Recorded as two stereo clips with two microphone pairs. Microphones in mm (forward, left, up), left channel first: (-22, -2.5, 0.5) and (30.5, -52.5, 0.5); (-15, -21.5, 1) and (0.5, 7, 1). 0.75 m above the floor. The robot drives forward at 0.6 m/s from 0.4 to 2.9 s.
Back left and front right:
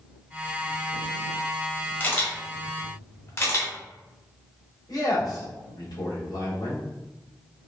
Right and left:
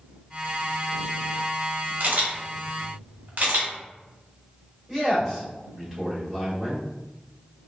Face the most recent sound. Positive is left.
turn(degrees=145)